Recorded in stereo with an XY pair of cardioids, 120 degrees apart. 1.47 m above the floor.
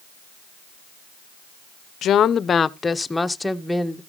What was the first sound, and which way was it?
A woman speaking, 60° left.